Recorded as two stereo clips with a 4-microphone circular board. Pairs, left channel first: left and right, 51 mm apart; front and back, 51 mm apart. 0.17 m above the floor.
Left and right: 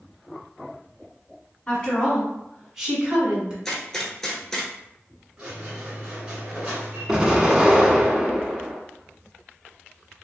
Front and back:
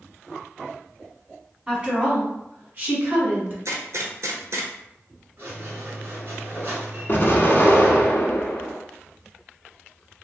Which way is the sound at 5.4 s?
150° right.